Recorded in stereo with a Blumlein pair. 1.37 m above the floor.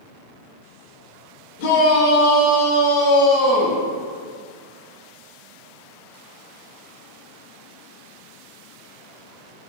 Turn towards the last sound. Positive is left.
turn(degrees=25)